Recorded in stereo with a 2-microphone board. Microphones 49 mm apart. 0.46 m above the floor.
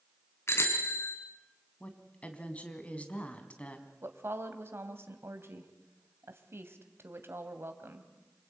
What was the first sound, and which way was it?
A bicycle bell, 60° left (ahead or behind).